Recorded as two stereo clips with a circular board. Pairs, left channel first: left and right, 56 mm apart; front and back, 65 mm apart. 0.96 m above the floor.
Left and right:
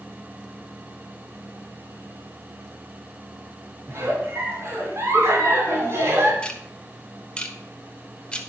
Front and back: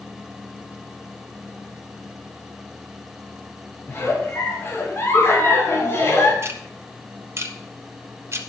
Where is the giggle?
50° right, 2.5 m.